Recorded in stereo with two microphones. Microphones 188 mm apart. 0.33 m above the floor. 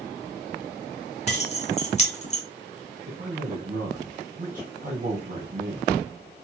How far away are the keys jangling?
About 0.9 m.